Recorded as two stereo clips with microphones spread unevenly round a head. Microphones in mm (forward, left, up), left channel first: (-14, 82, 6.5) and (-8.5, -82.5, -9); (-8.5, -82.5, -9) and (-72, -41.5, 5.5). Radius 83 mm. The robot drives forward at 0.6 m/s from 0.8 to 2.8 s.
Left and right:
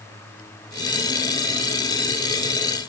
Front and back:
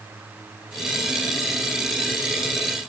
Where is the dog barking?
No dog barking in this recording.